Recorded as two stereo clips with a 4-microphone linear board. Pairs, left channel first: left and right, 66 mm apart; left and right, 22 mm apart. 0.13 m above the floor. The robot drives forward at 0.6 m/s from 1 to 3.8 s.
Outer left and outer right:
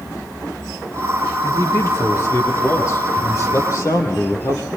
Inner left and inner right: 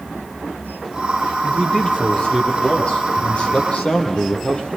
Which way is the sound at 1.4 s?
45° left (ahead or behind).